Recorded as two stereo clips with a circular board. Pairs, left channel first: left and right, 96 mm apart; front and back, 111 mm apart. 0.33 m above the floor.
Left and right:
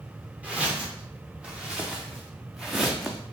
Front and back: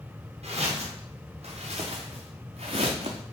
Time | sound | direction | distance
0.4 | footsteps | 165° right | 3 m